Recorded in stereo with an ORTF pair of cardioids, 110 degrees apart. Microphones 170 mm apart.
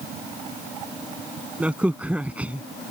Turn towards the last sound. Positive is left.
turn(degrees=-10)